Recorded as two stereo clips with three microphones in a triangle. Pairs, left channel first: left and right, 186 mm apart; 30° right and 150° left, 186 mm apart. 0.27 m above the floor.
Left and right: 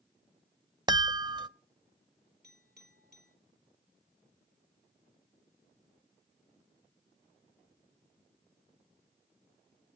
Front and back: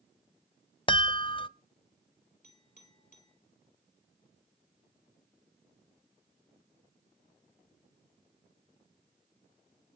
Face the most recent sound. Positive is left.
turn(degrees=-70)